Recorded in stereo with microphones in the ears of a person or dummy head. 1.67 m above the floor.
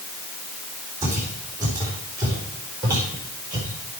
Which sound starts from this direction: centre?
Footsteps, at 1.0 s.